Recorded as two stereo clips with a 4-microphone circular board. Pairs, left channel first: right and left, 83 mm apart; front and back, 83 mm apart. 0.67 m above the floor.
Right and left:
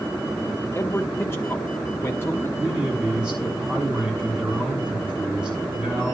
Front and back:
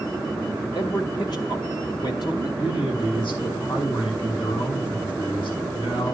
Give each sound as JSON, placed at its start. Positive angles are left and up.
{"t": 0.8, "sound": "a man speaking", "azimuth_deg": -30, "distance_m": 1.9}
{"t": 2.6, "sound": "a man speaking", "azimuth_deg": 15, "distance_m": 6.0}